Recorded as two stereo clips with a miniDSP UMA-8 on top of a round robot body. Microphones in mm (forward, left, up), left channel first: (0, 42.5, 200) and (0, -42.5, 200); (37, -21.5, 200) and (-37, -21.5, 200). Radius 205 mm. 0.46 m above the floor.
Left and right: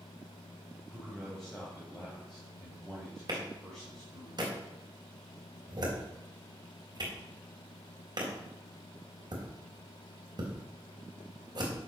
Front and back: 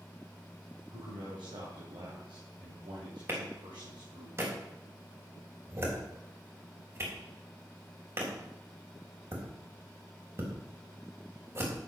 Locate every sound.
0.9 s a man speaking: 175° left, 4 m
3.3 s a clap: 125° right, 3.5 m